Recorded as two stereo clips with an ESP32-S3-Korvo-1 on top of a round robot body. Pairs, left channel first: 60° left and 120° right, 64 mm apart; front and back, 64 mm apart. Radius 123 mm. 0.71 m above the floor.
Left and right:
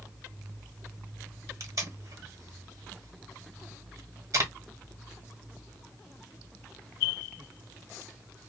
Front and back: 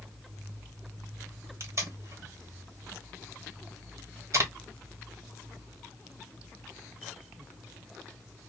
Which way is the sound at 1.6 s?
145° right.